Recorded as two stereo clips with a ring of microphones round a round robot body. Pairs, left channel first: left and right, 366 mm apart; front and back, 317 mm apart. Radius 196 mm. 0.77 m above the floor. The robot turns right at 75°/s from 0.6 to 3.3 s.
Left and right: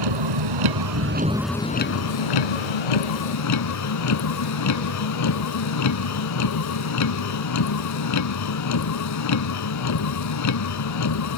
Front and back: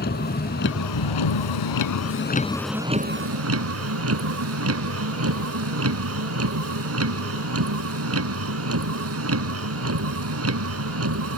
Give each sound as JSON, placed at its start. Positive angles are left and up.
{"t": 0.0, "sound": "a vehicle", "azimuth_deg": -65}